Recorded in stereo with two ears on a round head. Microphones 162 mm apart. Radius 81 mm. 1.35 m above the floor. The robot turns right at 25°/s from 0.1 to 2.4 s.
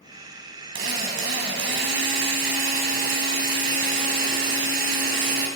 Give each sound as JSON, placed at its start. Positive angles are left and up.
{"t": 0.8, "sound": "a drill", "azimuth_deg": -100, "distance_m": 4.0}